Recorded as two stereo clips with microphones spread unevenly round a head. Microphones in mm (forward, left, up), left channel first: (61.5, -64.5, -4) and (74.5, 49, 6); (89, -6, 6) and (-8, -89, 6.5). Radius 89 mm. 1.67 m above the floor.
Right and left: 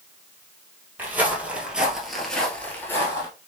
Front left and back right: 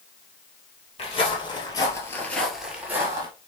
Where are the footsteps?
20° left, 2.5 m; by 3.3 s 140° right, 1.8 m.